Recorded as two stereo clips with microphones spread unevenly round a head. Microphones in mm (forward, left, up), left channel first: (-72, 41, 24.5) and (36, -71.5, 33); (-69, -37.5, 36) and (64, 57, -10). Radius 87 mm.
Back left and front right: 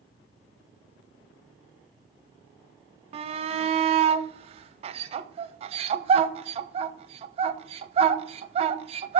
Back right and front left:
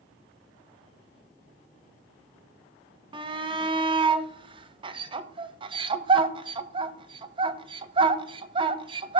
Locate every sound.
3.1 s a shout: straight ahead, 0.9 m